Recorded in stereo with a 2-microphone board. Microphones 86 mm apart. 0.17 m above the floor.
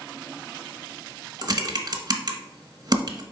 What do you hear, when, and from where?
1.4 s typing on a keyboard: 50° right (ahead or behind), 0.9 m